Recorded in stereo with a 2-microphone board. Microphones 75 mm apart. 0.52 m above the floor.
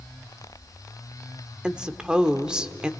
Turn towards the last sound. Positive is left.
turn(degrees=-10)  # may be behind; listen again after turning